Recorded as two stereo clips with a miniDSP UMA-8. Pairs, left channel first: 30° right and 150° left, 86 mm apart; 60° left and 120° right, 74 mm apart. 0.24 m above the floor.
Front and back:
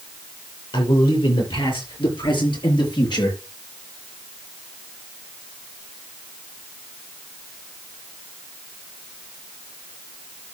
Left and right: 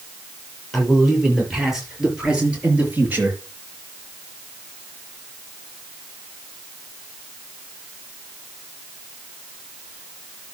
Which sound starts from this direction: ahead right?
A man speaking, at 0.7 s.